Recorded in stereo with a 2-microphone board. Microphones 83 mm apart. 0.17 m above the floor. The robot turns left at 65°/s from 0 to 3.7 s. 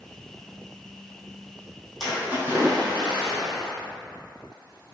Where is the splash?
Straight ahead, 1.3 m; by 3.8 s 110° right, 1.3 m.